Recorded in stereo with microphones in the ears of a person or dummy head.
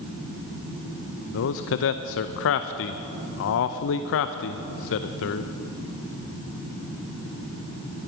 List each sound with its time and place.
1.3 s a man speaking: 70° left (ahead or behind), 0.6 m